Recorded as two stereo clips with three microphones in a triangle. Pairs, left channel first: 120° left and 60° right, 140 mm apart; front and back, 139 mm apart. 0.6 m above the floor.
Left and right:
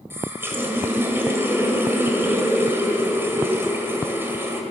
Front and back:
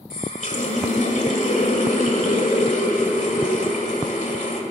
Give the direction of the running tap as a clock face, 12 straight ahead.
12 o'clock.